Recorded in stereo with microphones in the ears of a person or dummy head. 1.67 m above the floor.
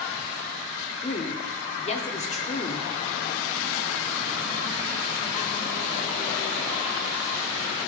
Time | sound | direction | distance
1.0 | a woman speaking | 35° left (ahead or behind) | 0.9 m